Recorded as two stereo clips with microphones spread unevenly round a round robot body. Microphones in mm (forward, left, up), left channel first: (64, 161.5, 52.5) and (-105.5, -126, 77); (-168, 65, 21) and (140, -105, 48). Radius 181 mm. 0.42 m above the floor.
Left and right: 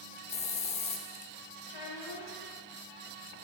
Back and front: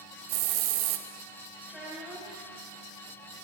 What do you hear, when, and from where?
0.3 s a hiss: 10° right, 0.7 m
1.7 s a child speaking: 60° left, 5 m